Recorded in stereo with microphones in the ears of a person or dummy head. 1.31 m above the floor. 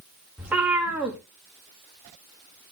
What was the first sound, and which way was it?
A cat meowing, 5° right (ahead or behind).